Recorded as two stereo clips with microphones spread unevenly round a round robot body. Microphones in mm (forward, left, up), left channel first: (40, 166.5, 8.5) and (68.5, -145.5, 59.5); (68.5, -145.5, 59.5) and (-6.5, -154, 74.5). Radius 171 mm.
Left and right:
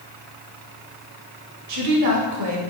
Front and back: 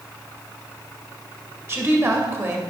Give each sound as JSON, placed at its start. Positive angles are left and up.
{"t": 1.7, "sound": "a woman speaking", "azimuth_deg": -115, "distance_m": 1.8}